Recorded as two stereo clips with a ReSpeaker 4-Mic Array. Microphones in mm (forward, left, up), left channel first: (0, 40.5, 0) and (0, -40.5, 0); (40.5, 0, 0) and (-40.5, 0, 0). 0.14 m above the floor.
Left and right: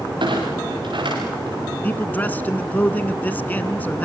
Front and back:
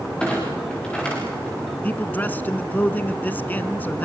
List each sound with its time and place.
0.2 s a clunk: 80° right, 8.5 m
1.8 s a man speaking: 45° left, 1.2 m